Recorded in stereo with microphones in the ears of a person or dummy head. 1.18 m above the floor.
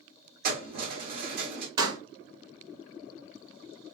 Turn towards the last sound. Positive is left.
turn(degrees=-25)  # may be behind; listen again after turning